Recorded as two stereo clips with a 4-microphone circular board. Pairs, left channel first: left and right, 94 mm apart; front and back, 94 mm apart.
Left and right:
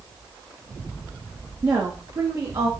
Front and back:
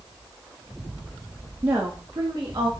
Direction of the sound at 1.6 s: 120° right.